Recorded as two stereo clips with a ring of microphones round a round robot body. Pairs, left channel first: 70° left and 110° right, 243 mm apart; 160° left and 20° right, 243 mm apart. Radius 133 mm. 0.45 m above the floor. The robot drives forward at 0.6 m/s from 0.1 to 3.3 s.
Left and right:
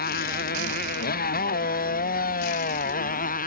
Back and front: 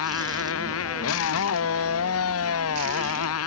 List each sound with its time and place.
0.0 s a motorcycle: 120° left; by 3.5 s 125° left